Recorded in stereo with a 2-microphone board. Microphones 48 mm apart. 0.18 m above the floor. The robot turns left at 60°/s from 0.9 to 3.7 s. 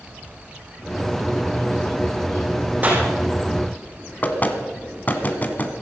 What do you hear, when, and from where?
2.8 s a clap: 30° right (ahead or behind), 7.5 m; by 3.0 s 45° right (ahead or behind), 7.5 m
4.2 s knocking: 35° left (ahead or behind), 1.6 m